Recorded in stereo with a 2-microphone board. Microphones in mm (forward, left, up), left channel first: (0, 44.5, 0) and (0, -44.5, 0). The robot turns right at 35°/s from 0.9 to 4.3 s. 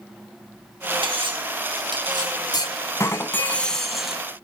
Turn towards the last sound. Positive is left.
turn(degrees=-165)